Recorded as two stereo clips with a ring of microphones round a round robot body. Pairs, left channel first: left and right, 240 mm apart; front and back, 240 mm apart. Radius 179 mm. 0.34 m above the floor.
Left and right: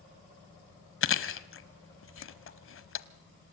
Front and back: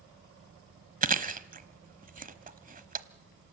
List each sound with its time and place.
1.0 s chewing: 125° left, 1.3 m